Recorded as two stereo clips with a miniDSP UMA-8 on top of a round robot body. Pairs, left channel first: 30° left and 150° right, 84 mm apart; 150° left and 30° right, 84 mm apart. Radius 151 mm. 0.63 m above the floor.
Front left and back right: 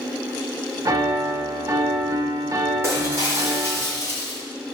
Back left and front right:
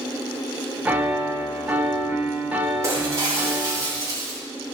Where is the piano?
100° right, 1.2 m.